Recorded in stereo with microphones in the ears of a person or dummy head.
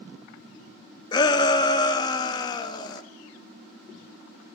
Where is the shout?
25° left (ahead or behind), 0.6 m.